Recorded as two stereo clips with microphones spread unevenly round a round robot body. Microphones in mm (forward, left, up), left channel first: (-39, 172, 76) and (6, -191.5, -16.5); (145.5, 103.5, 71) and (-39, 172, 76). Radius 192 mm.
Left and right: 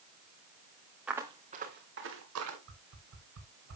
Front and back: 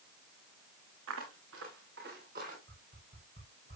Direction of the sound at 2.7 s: 140° right.